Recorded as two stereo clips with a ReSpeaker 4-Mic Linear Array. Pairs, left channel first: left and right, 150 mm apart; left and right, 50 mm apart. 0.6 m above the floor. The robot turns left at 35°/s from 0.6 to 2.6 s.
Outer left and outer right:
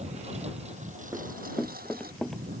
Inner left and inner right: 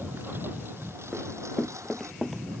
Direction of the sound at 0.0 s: 45° right (ahead or behind).